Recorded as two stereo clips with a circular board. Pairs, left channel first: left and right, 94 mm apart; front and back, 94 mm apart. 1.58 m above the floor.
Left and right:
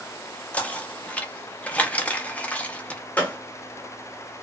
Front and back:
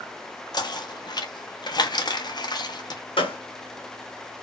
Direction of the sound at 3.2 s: 20° left.